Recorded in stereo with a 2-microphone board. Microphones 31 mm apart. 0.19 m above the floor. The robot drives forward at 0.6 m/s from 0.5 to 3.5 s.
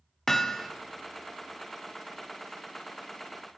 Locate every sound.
0.3 s hammering: 10° left (ahead or behind), 0.6 m